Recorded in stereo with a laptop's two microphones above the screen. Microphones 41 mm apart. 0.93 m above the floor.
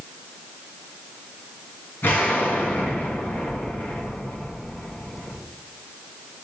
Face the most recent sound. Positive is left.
turn(degrees=60)  # may be behind; listen again after turning